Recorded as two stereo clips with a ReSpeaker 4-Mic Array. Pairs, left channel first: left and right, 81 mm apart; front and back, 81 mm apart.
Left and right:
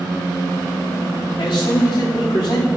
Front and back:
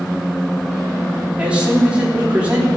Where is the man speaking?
105° left, 3.5 m.